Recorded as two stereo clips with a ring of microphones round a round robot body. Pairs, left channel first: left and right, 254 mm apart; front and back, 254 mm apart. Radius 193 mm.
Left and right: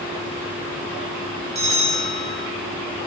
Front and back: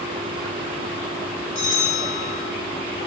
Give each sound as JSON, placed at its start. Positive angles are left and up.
{"t": 1.6, "sound": "a bell", "azimuth_deg": -30, "distance_m": 1.5}